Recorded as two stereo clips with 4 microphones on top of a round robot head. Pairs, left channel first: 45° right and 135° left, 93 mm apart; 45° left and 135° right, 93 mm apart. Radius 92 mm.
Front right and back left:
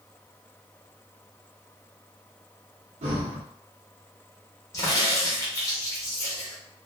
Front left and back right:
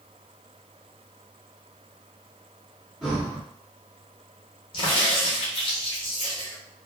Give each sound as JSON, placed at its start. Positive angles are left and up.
{"t": 3.0, "sound": "breathing", "azimuth_deg": 135, "distance_m": 1.1}
{"t": 4.7, "sound": "a crack", "azimuth_deg": 15, "distance_m": 0.7}